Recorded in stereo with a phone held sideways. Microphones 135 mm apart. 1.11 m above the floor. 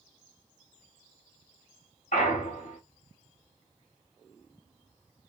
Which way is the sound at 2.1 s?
60° left (ahead or behind).